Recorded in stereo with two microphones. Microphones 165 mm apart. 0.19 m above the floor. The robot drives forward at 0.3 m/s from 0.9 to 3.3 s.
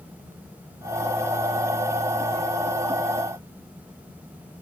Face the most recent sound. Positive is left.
No sound to turn to.